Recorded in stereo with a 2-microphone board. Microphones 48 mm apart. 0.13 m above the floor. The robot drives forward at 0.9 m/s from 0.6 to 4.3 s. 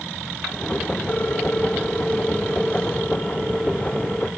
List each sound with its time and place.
1.1 s a ringtone: 40° left (ahead or behind), 1.3 m; by 4.3 s 15° left (ahead or behind), 3.5 m